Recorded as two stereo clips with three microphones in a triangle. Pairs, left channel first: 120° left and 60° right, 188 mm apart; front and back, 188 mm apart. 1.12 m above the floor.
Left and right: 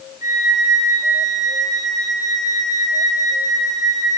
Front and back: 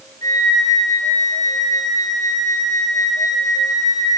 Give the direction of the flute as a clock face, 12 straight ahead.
10 o'clock.